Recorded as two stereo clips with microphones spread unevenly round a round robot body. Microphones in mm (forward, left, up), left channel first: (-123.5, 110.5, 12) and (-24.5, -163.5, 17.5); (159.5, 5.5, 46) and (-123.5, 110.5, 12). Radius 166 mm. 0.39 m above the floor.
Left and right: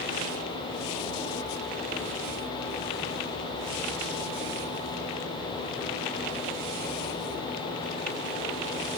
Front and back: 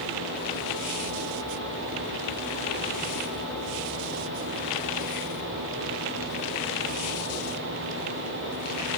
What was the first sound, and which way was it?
Only background noise.